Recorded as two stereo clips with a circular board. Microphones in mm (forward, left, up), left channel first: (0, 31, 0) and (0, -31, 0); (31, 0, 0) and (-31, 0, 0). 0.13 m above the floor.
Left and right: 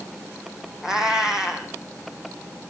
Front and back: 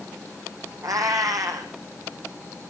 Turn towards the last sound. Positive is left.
turn(degrees=-170)